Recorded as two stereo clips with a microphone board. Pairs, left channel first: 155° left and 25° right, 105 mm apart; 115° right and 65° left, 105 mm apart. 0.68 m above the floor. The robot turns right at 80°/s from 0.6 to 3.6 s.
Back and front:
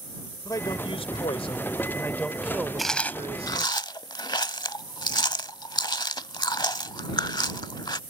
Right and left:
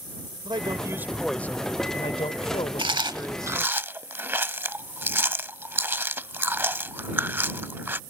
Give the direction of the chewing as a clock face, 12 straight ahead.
10 o'clock.